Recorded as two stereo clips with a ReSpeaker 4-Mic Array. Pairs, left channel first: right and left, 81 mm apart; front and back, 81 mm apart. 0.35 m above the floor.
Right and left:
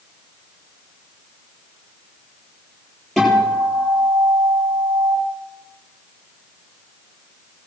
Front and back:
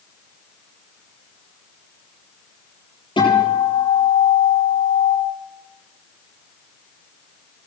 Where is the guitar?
Straight ahead, 8.5 m.